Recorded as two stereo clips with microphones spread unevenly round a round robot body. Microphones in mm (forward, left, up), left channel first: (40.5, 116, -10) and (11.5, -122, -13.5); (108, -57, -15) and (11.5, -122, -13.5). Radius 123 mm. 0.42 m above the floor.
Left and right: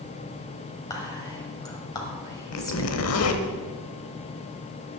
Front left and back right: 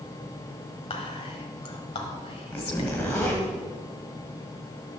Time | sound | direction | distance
0.9 | whispering | 10° left | 1.7 m
2.5 | a zipper | 115° left | 1.0 m